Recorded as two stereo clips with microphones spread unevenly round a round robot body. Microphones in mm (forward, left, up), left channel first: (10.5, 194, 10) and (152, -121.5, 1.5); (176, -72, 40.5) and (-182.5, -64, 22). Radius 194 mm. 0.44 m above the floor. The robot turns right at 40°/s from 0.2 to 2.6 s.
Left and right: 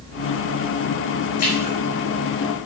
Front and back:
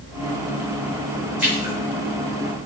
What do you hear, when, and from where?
1.4 s a splash: 90° left, 2.5 m; by 1.7 s 105° left, 2.5 m